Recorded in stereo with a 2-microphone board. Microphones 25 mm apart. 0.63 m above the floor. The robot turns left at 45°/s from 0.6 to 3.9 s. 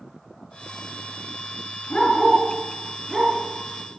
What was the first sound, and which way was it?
A dog barking, 45° left (ahead or behind).